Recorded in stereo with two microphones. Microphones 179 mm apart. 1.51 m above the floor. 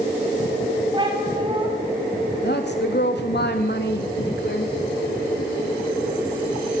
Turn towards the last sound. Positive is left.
turn(degrees=70)  # may be behind; listen again after turning